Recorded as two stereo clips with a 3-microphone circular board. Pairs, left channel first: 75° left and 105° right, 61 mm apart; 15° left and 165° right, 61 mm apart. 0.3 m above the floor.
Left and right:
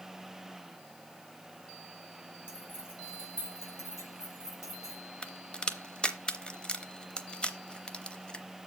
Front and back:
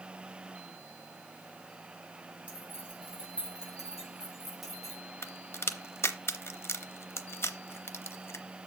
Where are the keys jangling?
130° left, 4.5 m; by 5.0 s 105° left, 3.5 m.